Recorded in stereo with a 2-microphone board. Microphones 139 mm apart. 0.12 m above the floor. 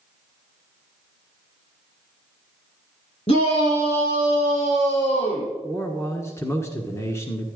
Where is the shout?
50° left (ahead or behind), 5 m; by 5.5 s 45° left (ahead or behind), 7 m.